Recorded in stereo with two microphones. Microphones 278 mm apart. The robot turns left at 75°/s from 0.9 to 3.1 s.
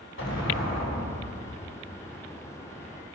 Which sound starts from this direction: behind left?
An explosion, at 0.2 s.